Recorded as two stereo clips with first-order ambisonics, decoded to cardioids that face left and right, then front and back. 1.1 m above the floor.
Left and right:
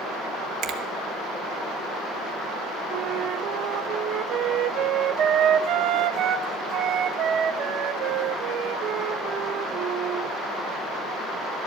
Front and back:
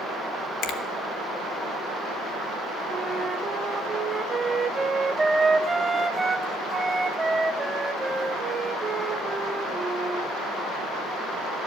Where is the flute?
110° right, 0.7 m.